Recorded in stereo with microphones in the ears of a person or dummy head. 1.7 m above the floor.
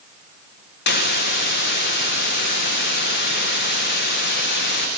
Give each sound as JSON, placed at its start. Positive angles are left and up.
{"t": 0.9, "sound": "a hiss", "side_deg": 55, "distance_m": 2.0}